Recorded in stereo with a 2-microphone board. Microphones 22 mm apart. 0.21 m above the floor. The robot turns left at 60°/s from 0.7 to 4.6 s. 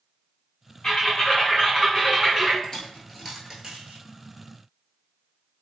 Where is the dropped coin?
30° left (ahead or behind), 1.0 m; by 4.0 s 50° right (ahead or behind), 1.0 m.